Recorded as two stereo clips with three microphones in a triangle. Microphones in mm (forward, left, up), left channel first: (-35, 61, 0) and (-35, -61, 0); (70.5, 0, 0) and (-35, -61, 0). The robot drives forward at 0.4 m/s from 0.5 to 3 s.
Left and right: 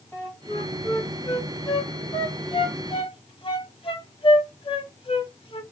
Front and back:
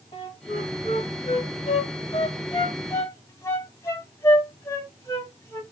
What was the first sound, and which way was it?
A flute, 20° left.